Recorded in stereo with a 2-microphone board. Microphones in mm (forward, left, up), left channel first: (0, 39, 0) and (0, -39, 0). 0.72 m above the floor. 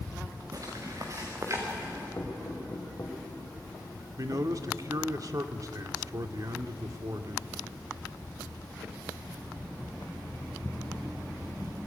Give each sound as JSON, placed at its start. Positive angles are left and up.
{"t": 0.5, "sound": "footsteps", "side_deg": -45, "distance_m": 5.0}
{"t": 2.2, "sound": "knocking", "side_deg": 35, "distance_m": 3.5}
{"t": 4.2, "sound": "a man speaking", "side_deg": -50, "distance_m": 1.5}